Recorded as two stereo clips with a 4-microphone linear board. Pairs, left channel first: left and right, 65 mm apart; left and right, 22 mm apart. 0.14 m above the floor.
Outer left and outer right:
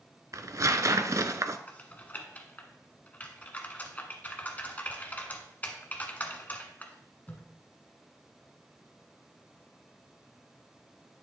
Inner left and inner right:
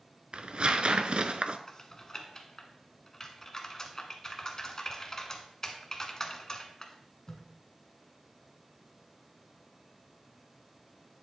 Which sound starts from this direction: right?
Tearing paper, at 0.3 s.